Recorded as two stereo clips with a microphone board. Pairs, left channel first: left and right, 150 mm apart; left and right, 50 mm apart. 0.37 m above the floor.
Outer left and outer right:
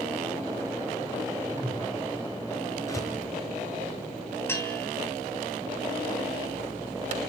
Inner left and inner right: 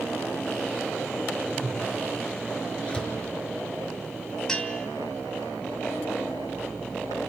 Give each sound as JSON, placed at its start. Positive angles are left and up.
{"t": 1.5, "sound": "a whoosh", "side_deg": 10, "distance_m": 8.0}
{"t": 2.9, "sound": "a door slam", "side_deg": 20, "distance_m": 5.0}
{"t": 4.5, "sound": "a bell", "side_deg": 15, "distance_m": 3.0}